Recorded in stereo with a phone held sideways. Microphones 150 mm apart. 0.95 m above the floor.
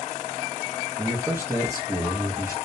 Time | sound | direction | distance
1.0 | a man speaking | 15° right (ahead or behind) | 0.8 m